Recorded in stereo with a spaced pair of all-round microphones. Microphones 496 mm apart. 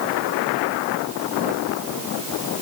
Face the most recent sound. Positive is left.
No sound to turn to.